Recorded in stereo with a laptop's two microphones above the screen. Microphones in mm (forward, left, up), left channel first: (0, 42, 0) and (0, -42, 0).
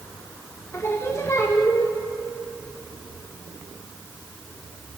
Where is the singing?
35° left (ahead or behind), 1.1 m.